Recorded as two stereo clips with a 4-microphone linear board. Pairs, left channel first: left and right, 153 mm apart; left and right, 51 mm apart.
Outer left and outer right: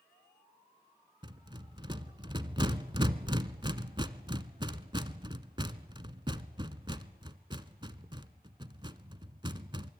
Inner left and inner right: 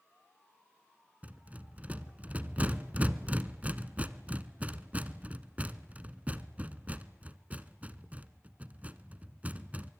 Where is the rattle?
30° right (ahead or behind), 1.0 m.